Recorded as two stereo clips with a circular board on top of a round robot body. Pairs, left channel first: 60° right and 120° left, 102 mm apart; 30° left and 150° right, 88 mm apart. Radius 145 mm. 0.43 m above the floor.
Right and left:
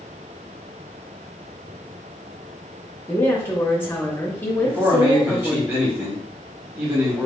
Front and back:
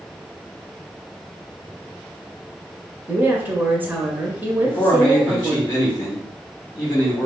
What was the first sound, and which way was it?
A woman speaking, 105° right.